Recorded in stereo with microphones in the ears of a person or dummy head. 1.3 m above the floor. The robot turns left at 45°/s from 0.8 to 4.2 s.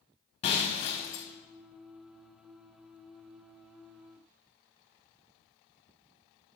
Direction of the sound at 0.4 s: 25° left (ahead or behind).